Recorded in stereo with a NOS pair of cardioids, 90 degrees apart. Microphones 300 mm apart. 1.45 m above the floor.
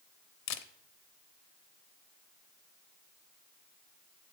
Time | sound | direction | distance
0.5 | a camera shutter | 70° left | 0.6 m